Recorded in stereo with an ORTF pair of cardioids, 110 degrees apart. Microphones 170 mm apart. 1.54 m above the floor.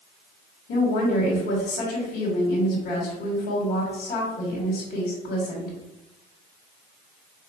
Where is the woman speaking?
70° left, 2.0 m.